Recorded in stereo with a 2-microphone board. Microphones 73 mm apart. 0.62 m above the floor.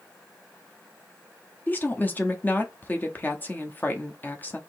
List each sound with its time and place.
1.7 s a woman speaking: 25° left (ahead or behind), 0.7 m